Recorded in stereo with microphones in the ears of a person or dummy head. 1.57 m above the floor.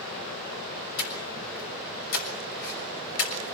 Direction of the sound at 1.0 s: 80° left.